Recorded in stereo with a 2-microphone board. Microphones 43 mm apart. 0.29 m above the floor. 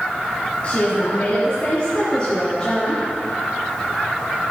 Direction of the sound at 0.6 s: 35° left (ahead or behind).